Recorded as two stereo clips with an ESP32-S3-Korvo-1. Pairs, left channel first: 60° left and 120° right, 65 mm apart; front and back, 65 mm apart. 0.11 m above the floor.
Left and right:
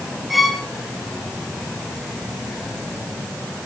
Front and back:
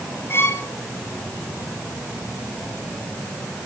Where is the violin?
30° right, 2 m.